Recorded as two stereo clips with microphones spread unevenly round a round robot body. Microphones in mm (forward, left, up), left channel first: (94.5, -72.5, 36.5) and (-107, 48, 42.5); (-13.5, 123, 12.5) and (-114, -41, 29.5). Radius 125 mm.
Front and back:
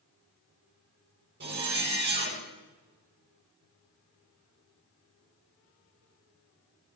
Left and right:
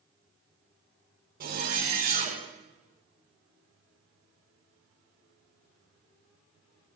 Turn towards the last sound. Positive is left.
turn(degrees=-160)